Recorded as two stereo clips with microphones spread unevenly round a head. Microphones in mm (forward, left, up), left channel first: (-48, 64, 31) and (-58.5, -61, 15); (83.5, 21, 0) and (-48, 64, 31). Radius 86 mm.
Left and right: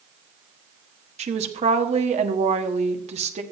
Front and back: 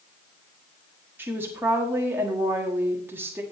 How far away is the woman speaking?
About 1.4 m.